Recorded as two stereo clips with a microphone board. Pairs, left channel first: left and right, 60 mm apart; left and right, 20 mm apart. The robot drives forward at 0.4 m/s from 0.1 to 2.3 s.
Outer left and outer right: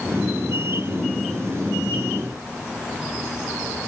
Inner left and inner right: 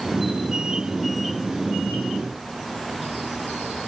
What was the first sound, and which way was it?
Only background noise.